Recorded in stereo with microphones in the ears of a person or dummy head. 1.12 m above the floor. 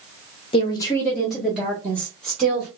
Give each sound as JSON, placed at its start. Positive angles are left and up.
{"t": 0.5, "sound": "a woman speaking", "side_deg": 30, "distance_m": 0.7}